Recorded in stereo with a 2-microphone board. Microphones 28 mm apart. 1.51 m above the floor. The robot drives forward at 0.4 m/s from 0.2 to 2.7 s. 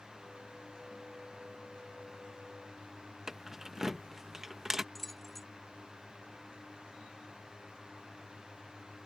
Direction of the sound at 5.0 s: 5° left (ahead or behind).